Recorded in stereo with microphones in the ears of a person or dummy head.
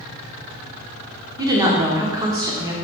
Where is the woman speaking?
25° right (ahead or behind), 1.1 m.